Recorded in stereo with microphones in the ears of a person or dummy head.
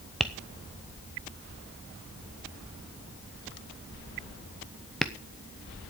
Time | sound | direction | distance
0.2 | tapping | 5° right (ahead or behind) | 0.9 m